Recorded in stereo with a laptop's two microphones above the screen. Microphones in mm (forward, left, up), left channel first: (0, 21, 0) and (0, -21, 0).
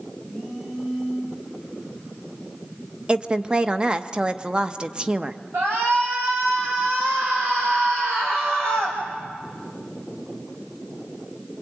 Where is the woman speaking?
20° right (ahead or behind), 0.7 m.